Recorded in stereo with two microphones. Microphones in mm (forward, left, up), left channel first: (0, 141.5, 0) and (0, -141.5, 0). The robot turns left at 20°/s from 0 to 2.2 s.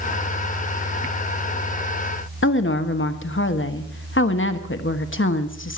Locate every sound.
2.4 s a woman speaking: 45° left (ahead or behind), 1.3 m